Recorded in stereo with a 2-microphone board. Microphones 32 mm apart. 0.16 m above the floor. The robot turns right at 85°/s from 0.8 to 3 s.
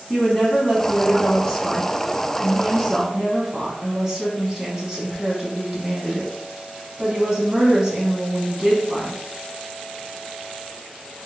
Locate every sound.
0.1 s a woman speaking: 15° left (ahead or behind), 1.2 m; by 9.2 s 20° right (ahead or behind), 1.2 m